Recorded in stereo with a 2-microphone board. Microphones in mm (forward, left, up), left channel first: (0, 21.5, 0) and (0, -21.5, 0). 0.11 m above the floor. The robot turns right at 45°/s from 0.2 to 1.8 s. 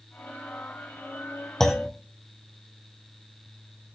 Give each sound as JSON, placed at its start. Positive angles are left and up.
{"t": 1.6, "sound": "a clunk", "side_deg": 10, "distance_m": 2.0}